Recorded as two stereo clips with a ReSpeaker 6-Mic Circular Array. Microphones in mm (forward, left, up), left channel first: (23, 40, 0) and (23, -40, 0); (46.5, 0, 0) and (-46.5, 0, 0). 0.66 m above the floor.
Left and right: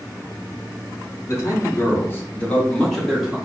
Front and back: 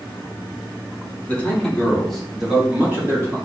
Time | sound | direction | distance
1.3 | a man speaking | 60° left | 1.5 m